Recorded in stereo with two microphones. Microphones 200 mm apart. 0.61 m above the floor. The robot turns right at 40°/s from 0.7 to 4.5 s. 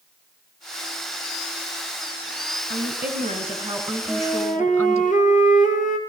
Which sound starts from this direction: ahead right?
A woman speaking, at 2.7 s.